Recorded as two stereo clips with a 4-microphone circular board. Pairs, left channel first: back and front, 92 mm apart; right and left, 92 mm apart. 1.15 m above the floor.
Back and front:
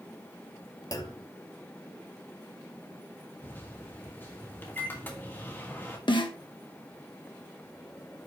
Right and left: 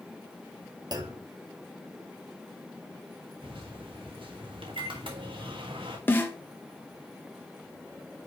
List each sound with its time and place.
0.9 s a clunk: 130° left, 1.0 m
3.4 s a microwave: 110° left, 1.7 m
6.1 s a snare drum: 160° right, 1.3 m